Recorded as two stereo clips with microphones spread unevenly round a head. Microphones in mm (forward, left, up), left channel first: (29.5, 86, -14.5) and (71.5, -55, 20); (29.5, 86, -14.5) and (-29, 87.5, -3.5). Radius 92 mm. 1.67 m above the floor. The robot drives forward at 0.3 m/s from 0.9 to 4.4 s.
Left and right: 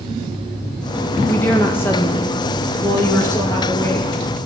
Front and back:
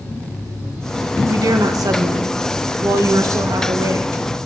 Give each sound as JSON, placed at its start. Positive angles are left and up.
{"t": 1.3, "sound": "a woman speaking", "azimuth_deg": -170, "distance_m": 1.3}